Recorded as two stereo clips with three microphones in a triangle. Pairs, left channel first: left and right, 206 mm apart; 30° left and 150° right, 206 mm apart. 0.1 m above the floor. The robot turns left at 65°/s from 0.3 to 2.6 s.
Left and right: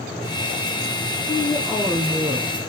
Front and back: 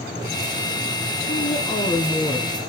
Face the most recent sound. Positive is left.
turn(degrees=-50)